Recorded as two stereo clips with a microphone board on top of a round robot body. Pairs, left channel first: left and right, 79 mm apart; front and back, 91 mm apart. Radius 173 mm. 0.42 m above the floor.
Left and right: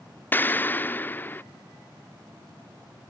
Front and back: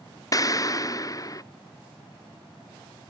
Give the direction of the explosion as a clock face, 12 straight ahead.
11 o'clock.